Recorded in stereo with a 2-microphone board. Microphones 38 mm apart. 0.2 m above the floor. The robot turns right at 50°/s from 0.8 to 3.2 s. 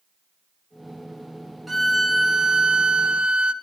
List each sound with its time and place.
1.7 s a violin: centre (ahead or behind), 1.2 m; by 3.5 s 25° right (ahead or behind), 1.2 m